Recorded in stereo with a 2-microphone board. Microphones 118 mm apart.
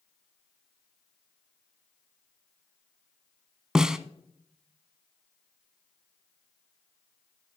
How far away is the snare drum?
About 0.5 m.